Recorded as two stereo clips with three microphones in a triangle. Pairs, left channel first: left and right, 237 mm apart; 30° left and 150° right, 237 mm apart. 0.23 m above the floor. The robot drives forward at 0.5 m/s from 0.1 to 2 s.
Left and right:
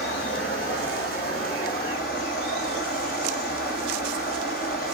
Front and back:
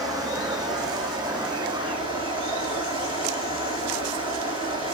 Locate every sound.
0.0 s running water: 135° left, 7 m; by 4.9 s 140° left, 7.5 m